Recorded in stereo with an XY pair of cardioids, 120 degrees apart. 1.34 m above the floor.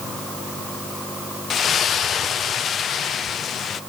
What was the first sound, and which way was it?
A splash, 50° left.